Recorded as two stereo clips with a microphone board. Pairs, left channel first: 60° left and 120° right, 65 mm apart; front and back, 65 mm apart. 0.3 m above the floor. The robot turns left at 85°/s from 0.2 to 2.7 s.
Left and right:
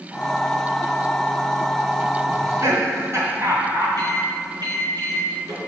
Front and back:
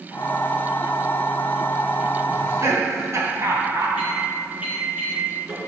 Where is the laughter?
115° right, 3 m; by 3.9 s 150° right, 3 m.